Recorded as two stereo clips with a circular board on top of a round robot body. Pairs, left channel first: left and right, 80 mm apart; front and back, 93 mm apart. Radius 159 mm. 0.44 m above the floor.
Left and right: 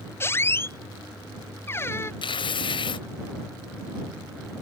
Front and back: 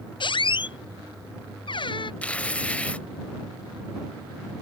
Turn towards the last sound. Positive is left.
turn(degrees=75)